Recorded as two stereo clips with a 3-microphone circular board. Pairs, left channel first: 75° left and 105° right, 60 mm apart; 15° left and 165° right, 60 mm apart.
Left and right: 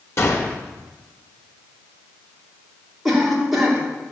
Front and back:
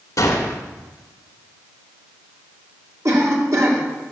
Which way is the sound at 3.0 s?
165° left.